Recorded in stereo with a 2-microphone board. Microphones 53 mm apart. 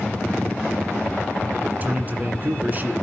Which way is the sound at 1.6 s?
35° right (ahead or behind).